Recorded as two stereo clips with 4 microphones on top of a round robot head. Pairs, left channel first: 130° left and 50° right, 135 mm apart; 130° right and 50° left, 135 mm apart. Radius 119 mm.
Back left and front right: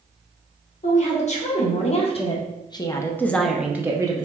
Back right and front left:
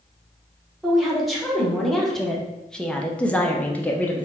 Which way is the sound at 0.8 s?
140° left.